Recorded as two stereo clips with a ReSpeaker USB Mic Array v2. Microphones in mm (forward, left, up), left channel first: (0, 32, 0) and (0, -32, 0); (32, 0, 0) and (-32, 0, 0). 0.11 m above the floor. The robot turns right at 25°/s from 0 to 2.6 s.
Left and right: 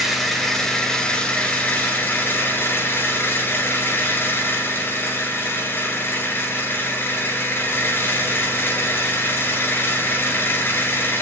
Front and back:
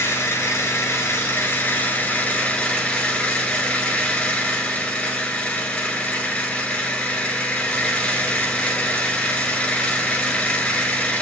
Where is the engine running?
Straight ahead, 1.8 m; by 11.2 s 65° left, 1.8 m.